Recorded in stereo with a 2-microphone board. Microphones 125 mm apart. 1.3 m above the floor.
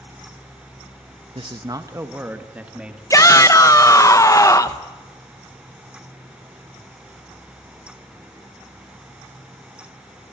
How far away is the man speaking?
About 0.9 m.